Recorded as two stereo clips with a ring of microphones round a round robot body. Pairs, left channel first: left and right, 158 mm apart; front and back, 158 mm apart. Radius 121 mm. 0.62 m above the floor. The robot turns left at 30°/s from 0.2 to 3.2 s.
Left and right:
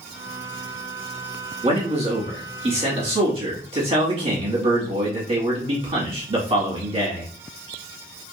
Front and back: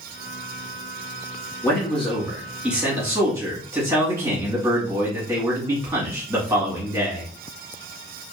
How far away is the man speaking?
About 1.2 m.